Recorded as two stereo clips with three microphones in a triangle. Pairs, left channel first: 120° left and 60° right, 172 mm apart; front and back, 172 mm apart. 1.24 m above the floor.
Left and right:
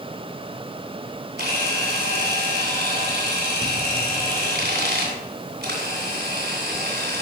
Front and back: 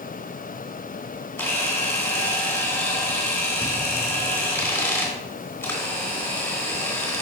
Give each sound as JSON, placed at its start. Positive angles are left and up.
{"t": 1.4, "sound": "a camera shutter", "azimuth_deg": -75, "distance_m": 3.0}